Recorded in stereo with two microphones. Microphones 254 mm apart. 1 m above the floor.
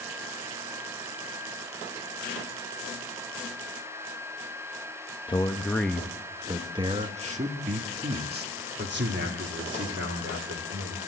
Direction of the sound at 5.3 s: 20° left (ahead or behind).